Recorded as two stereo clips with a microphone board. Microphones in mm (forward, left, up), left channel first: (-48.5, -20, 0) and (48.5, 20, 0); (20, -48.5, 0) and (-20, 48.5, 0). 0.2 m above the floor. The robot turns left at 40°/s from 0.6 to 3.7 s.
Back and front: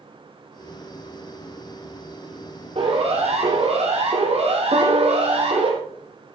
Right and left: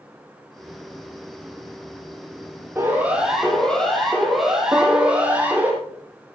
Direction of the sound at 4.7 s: 45° left.